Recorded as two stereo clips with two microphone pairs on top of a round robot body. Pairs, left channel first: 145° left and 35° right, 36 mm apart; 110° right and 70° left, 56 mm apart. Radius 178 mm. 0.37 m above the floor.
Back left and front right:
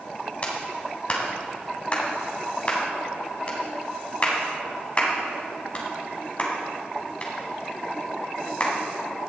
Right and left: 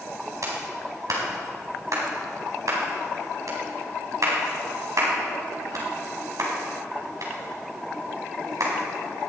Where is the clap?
95° left, 3.5 m.